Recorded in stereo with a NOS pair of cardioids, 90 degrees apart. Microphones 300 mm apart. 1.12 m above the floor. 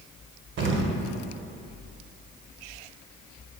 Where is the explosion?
40° right, 0.6 m.